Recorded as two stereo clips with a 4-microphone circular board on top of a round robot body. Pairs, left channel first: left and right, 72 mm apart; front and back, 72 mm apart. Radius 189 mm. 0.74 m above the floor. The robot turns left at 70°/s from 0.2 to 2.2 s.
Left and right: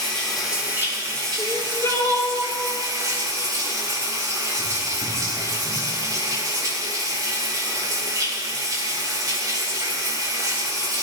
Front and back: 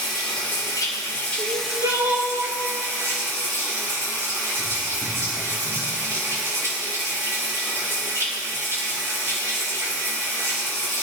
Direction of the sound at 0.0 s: 10° left.